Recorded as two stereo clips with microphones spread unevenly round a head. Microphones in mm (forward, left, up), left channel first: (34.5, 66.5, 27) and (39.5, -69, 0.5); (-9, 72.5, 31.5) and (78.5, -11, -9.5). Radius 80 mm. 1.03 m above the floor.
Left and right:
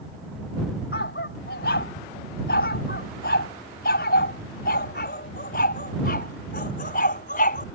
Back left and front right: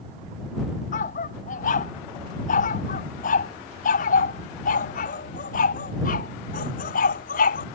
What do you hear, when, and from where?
0.9 s a dog barking: 125° left; by 7.7 s 135° left